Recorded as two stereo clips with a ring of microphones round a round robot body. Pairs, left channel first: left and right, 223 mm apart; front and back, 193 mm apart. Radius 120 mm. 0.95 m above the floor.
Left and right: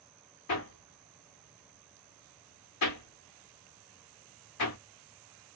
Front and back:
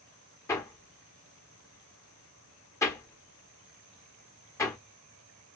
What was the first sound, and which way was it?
Hammering, 75° left.